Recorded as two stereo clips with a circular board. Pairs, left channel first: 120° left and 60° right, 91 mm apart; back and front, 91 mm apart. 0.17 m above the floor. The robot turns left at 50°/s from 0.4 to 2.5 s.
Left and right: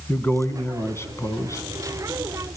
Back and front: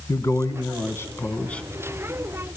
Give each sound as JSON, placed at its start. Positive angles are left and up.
{"t": 0.1, "sound": "a man speaking", "azimuth_deg": 175, "distance_m": 1.4}